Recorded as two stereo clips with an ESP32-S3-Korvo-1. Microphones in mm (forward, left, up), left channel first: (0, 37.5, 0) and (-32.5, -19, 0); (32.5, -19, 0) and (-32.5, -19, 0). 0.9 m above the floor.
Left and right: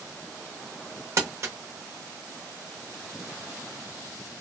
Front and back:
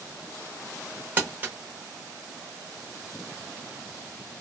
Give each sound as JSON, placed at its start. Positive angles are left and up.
{"t": 1.2, "sound": "crumpling", "azimuth_deg": -125, "distance_m": 0.8}